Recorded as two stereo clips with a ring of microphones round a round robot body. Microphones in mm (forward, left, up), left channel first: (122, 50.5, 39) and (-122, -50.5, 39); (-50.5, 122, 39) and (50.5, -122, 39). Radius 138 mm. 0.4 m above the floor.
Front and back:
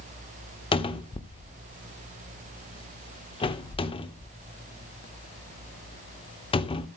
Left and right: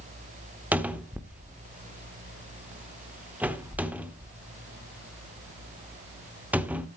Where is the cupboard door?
5° left, 1.0 m.